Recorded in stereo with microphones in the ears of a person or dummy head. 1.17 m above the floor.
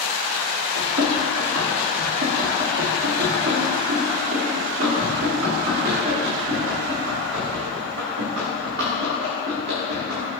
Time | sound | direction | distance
0.8 | running footsteps | 55° right (ahead or behind) | 3.5 m